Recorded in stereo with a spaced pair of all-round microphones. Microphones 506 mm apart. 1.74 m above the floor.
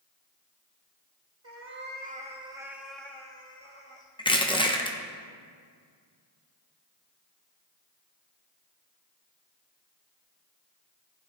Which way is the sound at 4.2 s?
10° left (ahead or behind).